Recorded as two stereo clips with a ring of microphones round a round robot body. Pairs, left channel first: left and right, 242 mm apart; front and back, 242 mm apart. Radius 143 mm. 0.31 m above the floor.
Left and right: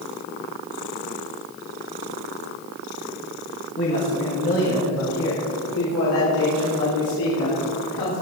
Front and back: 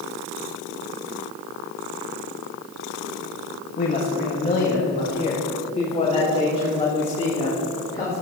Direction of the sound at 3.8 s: 50° left.